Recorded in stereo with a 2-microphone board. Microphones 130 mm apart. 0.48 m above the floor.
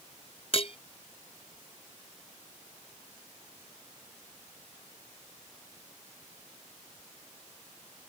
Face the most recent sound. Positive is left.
turn(degrees=45)  # may be behind; listen again after turning